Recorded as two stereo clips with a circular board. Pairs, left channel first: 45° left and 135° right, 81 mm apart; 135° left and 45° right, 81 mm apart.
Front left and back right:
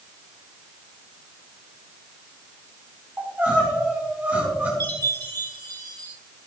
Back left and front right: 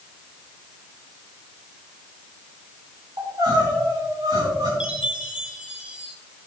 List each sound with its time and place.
3.2 s crying: 70° right, 4.5 m
4.8 s a chime: 120° right, 2.5 m